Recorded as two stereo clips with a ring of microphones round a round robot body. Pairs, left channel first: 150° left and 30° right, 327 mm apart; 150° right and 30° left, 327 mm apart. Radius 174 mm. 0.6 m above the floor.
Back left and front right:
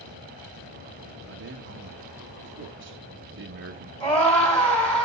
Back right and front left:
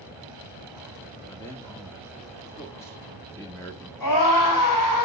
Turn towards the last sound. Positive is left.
turn(degrees=-125)